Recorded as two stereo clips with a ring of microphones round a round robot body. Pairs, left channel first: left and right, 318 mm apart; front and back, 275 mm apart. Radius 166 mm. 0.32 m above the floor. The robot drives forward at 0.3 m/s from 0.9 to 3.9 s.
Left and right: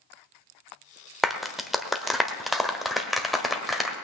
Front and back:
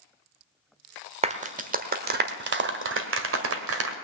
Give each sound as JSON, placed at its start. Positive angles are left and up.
{"t": 1.2, "sound": "a clap", "azimuth_deg": 180, "distance_m": 1.2}